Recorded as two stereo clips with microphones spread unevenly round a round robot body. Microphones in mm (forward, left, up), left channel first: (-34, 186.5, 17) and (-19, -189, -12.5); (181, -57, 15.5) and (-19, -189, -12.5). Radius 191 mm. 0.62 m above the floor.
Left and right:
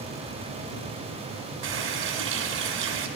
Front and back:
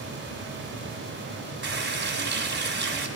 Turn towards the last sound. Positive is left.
turn(degrees=-100)